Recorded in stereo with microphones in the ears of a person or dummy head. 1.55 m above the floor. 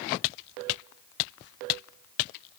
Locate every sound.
Only background noise.